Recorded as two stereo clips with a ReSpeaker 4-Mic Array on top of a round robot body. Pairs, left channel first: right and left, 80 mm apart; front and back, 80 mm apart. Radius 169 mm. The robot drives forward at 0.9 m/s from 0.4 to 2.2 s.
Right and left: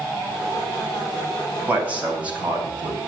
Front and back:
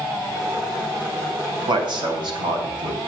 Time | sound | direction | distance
1.7 | a man speaking | 160° left | 3 m